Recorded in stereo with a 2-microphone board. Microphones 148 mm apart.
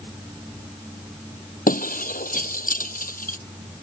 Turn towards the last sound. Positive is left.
turn(degrees=70)  # may be behind; listen again after turning